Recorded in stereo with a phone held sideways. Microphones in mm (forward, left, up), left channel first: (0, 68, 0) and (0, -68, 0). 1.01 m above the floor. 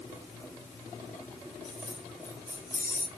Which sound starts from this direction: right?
Keys jangling, at 1.6 s.